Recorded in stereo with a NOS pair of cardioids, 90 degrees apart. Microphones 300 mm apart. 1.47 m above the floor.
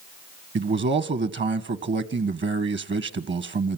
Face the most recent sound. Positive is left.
turn(degrees=-40)